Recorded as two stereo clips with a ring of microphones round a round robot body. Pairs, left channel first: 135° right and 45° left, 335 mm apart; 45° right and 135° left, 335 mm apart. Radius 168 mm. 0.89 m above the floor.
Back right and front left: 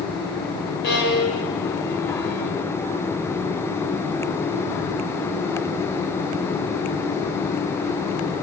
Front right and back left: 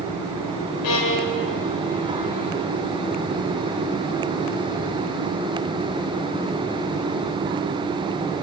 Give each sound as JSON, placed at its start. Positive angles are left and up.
{"t": 0.8, "sound": "a violin", "azimuth_deg": -75, "distance_m": 5.0}